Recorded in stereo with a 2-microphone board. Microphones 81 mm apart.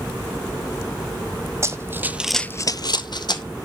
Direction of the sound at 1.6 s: 35° right (ahead or behind).